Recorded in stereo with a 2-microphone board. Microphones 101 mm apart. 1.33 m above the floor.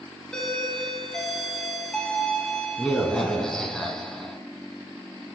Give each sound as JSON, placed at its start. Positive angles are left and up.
{"t": 0.3, "sound": "a doorbell", "side_deg": 5, "distance_m": 1.2}